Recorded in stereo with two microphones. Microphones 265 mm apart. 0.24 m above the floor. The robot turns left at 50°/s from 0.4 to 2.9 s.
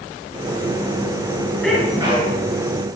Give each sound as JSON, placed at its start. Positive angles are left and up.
{"t": 1.6, "sound": "a sneeze", "azimuth_deg": 5, "distance_m": 3.0}